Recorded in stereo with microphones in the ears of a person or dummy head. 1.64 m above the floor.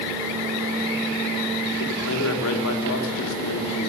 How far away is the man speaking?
About 3.5 m.